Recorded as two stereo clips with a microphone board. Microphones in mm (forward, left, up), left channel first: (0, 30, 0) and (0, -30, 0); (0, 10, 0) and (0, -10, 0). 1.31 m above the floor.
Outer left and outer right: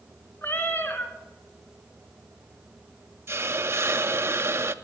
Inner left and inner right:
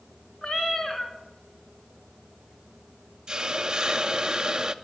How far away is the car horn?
I don't hear a car horn.